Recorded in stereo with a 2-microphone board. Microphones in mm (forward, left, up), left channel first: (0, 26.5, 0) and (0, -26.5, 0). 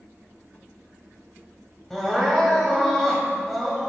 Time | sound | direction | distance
1.9 | crying | 5° left (ahead or behind) | 2 m